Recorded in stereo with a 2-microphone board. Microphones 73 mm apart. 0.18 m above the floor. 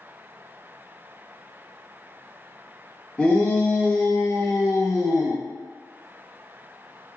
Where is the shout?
15° left (ahead or behind), 1.7 m; by 5.4 s 45° left (ahead or behind), 2 m.